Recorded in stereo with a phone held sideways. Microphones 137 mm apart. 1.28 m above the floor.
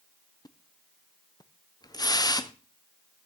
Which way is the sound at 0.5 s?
30° left (ahead or behind).